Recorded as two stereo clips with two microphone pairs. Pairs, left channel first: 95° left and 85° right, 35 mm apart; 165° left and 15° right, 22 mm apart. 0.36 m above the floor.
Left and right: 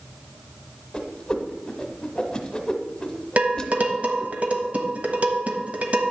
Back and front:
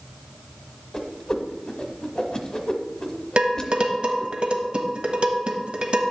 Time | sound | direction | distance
0.9 | a whoosh | 145° left | 1.1 m
3.4 | dishes clattering | 45° right | 1.2 m